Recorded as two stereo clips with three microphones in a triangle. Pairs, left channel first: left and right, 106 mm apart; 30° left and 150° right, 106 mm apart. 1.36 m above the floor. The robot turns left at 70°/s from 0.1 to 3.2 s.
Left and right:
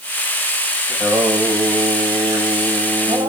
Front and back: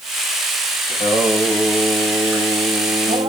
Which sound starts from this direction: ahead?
Singing, at 0.9 s.